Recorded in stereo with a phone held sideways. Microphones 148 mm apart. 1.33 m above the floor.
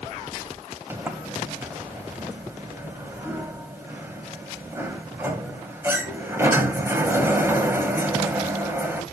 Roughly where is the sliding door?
Centre.